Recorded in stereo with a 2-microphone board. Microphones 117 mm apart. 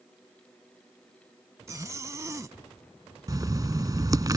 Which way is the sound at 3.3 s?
35° right (ahead or behind).